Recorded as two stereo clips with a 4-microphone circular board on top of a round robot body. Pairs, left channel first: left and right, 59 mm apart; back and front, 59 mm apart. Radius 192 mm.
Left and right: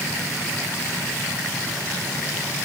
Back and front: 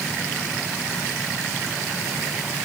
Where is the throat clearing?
No throat clearing in this recording.